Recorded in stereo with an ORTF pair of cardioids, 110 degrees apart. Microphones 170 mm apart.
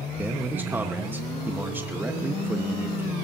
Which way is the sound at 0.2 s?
10° right.